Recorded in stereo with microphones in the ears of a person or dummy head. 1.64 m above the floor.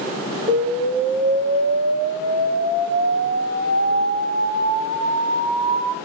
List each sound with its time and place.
0.5 s an explosion: 50° right (ahead or behind), 1.4 m